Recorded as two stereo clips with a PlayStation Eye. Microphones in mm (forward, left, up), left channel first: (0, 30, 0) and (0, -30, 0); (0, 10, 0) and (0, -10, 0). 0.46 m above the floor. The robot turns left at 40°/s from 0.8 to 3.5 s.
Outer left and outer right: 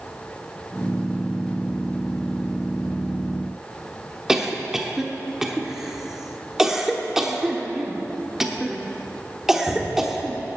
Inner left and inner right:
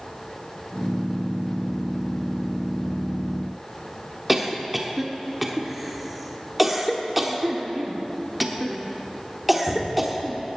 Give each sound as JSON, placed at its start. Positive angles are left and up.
{"t": 4.3, "sound": "a cough", "side_deg": -5, "distance_m": 1.1}